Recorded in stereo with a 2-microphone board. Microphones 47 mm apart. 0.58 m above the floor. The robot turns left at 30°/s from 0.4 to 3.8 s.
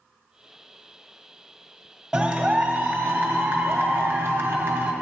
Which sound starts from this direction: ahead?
A clap, at 2.1 s.